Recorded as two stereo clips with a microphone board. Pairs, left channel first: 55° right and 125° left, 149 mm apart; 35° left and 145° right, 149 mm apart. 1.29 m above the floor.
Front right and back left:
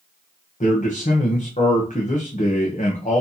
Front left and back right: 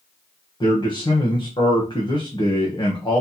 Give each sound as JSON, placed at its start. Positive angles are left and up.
{"t": 0.6, "sound": "a man speaking", "azimuth_deg": -25, "distance_m": 1.0}